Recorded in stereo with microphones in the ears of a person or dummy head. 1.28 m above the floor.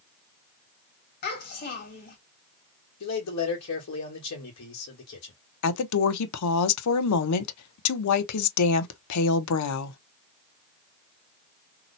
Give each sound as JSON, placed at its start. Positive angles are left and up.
{"t": 1.2, "sound": "a child speaking", "side_deg": 45, "distance_m": 1.6}
{"t": 3.0, "sound": "a man speaking", "side_deg": 70, "distance_m": 1.3}
{"t": 5.6, "sound": "a woman speaking", "side_deg": 85, "distance_m": 0.7}